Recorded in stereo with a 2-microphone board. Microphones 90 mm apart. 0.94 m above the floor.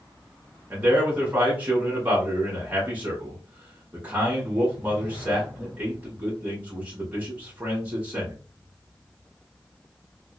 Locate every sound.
0.7 s a man speaking: 20° right (ahead or behind), 1.1 m